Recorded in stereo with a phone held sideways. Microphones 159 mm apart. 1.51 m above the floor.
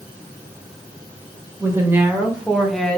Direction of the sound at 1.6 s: 20° right (ahead or behind).